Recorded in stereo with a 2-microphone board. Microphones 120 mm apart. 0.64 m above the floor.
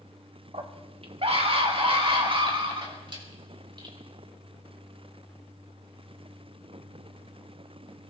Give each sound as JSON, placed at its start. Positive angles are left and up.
{"t": 0.5, "sound": "a scream", "side_deg": -55, "distance_m": 1.8}